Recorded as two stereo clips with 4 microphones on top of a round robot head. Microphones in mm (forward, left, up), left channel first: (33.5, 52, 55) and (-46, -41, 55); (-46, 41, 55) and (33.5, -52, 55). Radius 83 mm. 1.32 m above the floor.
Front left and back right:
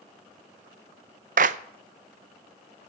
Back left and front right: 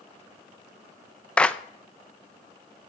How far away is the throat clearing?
No throat clearing in this recording.